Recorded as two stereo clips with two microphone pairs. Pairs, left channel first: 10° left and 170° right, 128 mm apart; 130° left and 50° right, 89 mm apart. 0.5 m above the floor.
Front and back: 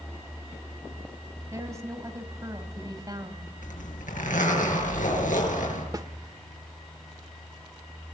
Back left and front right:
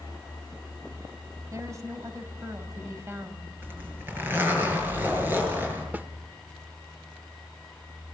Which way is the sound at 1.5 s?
100° right.